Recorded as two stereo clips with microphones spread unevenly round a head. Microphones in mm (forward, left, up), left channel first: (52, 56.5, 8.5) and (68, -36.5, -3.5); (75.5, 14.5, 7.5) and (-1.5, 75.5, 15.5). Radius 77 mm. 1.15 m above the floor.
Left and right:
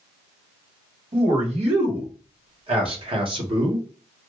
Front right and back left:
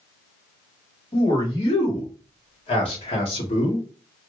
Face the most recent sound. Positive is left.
turn(degrees=-45)